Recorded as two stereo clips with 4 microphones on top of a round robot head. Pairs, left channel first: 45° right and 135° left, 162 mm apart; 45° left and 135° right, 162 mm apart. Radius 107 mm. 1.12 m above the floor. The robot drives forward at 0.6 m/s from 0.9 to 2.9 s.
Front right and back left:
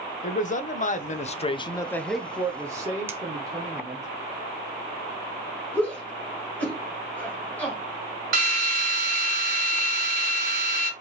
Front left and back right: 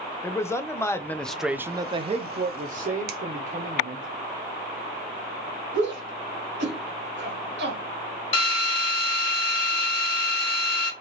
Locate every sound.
0.2 s a man speaking: 25° right, 0.8 m; by 4.1 s 160° right, 0.9 m
3.1 s a finger snap: 150° right, 0.8 m
5.7 s a shout: 125° right, 1.8 m
8.3 s a drill: 105° left, 1.3 m